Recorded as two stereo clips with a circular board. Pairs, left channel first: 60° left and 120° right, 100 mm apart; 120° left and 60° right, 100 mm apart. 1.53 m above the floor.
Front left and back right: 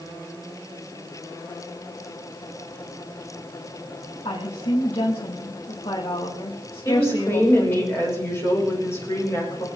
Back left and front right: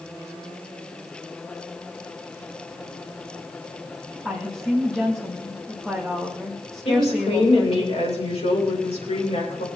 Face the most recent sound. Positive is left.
turn(degrees=125)